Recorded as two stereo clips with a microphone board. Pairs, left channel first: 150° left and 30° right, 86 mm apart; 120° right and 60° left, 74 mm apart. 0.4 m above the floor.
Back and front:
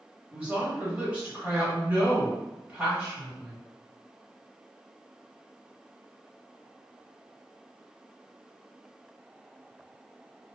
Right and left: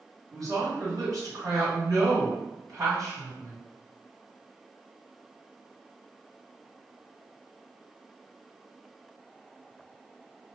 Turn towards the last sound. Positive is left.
turn(degrees=40)